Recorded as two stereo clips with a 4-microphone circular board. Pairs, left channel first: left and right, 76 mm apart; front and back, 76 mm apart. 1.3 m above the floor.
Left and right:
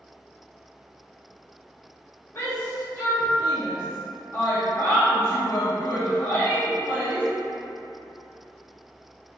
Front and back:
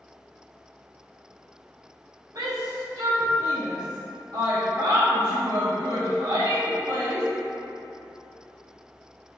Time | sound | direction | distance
2.4 | a shout | 140° left | 0.6 m